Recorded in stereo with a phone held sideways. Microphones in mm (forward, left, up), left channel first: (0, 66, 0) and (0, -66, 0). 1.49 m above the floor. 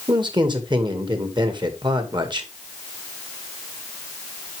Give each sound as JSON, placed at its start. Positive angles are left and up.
{"t": 0.1, "sound": "a man speaking", "side_deg": -35, "distance_m": 2.0}